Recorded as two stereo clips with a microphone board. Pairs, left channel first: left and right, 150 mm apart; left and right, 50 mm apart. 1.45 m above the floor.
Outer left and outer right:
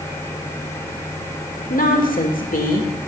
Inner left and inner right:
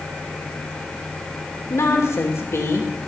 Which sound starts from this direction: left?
A woman speaking, at 1.7 s.